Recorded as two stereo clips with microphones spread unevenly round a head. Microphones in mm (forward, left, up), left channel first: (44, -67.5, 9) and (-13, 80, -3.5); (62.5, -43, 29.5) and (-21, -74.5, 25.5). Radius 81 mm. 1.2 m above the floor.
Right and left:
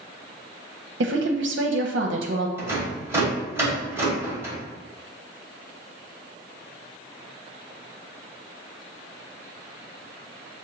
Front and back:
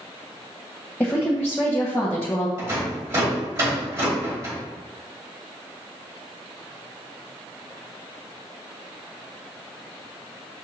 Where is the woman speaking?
105° left, 0.7 m.